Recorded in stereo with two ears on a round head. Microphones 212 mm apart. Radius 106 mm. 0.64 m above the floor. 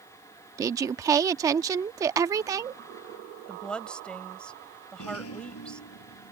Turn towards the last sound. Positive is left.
turn(degrees=65)  # may be behind; listen again after turning